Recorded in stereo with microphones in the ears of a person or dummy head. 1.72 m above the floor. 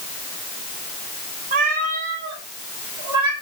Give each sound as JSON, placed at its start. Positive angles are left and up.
{"t": 1.5, "sound": "a cat meowing", "side_deg": -40, "distance_m": 1.6}